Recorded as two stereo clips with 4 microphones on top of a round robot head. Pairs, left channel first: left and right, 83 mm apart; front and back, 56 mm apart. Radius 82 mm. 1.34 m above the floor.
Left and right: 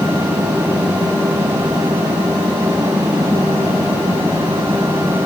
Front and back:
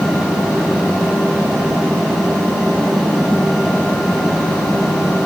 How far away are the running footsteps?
No running footsteps in this recording.